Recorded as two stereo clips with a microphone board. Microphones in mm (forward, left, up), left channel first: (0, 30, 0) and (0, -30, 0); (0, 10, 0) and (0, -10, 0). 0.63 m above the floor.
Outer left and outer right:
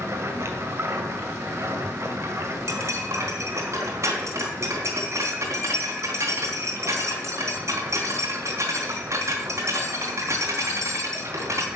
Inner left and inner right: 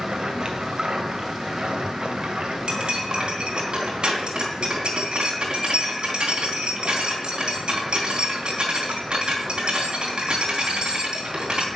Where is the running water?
50° right (ahead or behind), 2 m.